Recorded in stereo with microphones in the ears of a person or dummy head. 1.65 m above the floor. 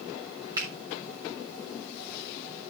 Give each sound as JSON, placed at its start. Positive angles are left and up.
{"t": 0.6, "sound": "a finger snap", "side_deg": -20, "distance_m": 3.5}